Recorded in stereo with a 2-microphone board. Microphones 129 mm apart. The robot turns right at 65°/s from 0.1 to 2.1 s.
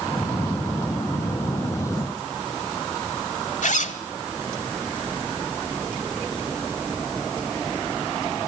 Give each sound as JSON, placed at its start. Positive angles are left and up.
{"t": 3.6, "sound": "a zipper", "side_deg": 75, "distance_m": 1.4}